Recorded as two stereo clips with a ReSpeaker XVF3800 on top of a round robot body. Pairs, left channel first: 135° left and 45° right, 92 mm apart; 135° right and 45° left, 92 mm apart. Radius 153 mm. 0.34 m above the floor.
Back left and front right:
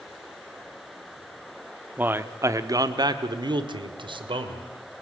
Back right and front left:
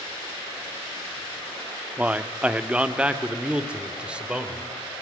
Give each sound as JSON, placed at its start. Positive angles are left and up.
{"t": 2.0, "sound": "a man speaking", "azimuth_deg": -10, "distance_m": 1.3}